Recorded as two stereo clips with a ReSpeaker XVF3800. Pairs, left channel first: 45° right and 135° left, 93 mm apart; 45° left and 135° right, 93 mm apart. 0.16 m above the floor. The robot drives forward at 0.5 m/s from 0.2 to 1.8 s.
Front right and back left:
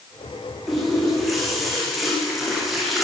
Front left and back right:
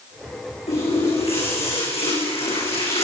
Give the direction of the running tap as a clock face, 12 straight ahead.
11 o'clock.